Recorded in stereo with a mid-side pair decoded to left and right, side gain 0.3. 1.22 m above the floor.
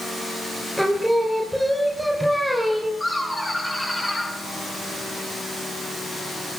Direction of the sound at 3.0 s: 15° left.